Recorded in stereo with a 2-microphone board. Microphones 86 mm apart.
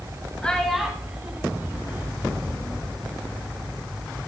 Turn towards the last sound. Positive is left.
turn(degrees=-30)  # may be behind; listen again after turning